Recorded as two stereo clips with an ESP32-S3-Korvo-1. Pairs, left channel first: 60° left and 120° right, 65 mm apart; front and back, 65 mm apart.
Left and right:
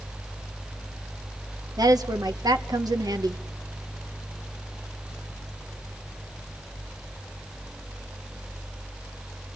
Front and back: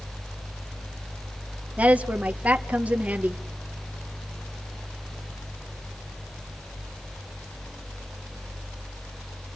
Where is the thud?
No thud in this recording.